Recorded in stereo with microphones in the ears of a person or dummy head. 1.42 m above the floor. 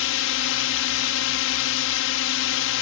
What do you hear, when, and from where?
0.0 s a drone: 65° left (ahead or behind)